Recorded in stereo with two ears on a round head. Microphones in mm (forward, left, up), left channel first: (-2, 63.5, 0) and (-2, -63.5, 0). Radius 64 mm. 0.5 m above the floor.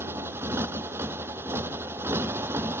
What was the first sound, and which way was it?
A motorcycle, 15° right (ahead or behind).